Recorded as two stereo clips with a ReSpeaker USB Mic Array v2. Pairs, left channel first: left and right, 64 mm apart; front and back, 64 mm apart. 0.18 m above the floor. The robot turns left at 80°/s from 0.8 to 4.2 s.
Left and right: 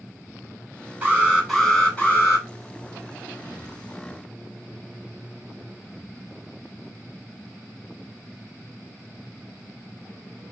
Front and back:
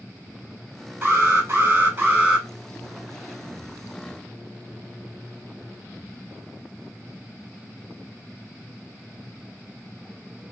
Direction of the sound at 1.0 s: 140° right.